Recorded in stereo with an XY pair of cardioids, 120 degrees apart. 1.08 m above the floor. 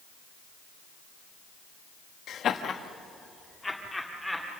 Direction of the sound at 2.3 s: 60° left.